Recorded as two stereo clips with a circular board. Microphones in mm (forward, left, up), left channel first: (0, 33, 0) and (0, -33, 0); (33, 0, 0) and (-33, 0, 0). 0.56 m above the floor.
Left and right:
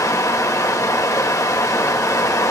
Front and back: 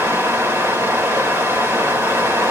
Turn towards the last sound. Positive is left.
turn(degrees=130)